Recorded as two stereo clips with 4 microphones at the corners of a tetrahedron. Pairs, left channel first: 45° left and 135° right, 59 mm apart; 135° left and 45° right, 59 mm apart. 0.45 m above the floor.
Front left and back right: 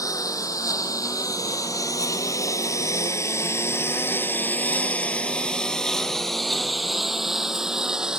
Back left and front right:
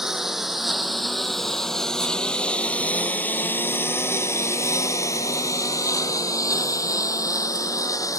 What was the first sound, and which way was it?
A lawn mower, 40° left.